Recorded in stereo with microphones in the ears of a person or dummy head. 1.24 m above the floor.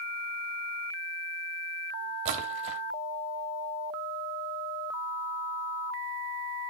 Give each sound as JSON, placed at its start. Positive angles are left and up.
{"t": 2.2, "sound": "a splash", "side_deg": -40, "distance_m": 1.4}